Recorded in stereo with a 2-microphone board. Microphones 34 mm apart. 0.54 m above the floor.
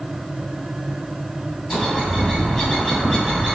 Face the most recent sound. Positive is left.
turn(degrees=15)  # may be behind; listen again after turning